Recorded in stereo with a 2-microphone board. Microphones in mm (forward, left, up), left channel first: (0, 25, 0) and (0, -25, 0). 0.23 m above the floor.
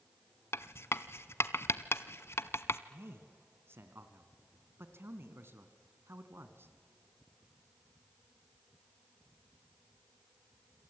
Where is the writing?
60° left (ahead or behind), 0.8 m.